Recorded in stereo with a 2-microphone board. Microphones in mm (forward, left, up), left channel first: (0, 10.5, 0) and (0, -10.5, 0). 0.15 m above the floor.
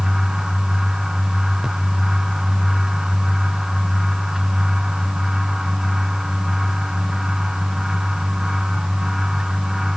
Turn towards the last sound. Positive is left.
No sound to turn to.